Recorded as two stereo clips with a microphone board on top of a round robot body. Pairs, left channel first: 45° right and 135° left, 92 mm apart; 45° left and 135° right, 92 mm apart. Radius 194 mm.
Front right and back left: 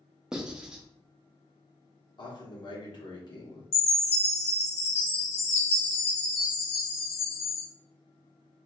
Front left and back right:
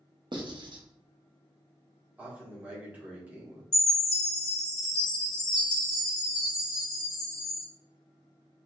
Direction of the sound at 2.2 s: 65° right.